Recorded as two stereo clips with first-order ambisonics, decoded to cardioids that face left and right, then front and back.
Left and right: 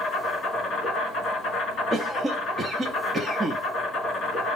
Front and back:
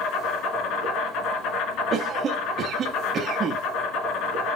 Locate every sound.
0.0 s an insect: 35° left, 3 m
1.9 s a cough: 160° right, 0.5 m